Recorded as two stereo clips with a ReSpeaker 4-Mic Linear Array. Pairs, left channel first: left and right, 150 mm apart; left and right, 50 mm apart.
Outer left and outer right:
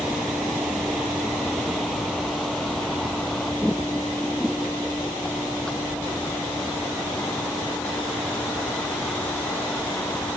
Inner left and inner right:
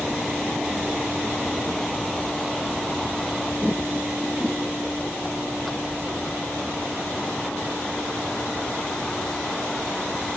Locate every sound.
0.0 s a vehicle: 5° right (ahead or behind); by 10.4 s 10° left (ahead or behind)